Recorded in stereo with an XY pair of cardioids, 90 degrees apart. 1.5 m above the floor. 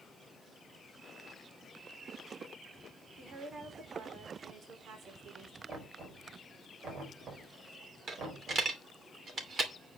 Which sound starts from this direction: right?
Knocking, at 5.7 s.